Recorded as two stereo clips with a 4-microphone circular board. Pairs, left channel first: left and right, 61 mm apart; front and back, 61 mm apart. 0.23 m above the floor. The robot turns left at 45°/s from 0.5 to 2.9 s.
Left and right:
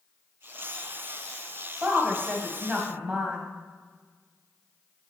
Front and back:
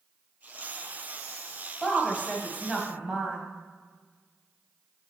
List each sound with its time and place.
1.8 s a woman speaking: 85° right, 1.4 m; by 3.4 s 130° right, 1.4 m